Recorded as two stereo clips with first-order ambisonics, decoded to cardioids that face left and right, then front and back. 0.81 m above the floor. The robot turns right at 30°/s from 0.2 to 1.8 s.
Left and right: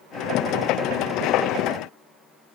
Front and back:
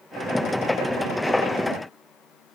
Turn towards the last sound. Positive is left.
No sound to turn to.